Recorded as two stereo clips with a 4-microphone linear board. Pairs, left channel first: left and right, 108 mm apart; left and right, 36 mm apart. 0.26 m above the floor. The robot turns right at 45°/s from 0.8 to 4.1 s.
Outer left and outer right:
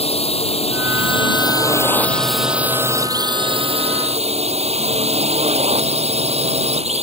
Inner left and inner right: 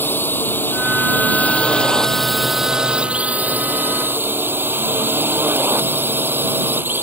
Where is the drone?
110° left; by 7.0 s 100° right.